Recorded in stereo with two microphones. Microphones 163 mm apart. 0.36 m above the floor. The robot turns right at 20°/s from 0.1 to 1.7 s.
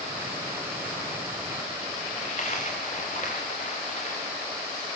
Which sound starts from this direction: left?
A dropped coin, at 2.2 s.